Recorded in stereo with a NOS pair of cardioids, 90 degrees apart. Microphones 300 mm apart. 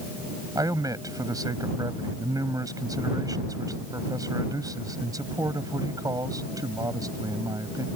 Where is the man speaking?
10° right.